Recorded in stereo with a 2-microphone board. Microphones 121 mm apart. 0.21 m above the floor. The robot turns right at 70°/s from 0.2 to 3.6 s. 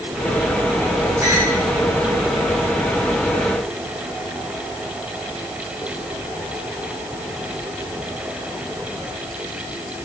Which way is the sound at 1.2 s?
30° right (ahead or behind).